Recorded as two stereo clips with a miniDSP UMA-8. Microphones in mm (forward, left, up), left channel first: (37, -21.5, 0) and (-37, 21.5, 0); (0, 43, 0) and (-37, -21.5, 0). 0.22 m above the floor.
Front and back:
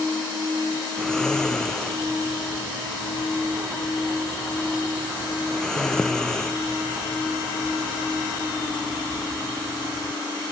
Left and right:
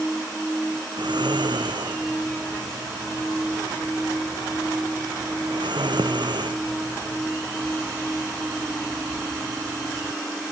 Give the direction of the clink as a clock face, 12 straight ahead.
I don't hear a clink.